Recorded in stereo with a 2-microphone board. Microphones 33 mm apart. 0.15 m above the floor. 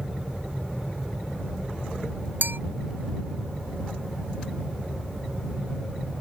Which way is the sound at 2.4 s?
75° right (ahead or behind).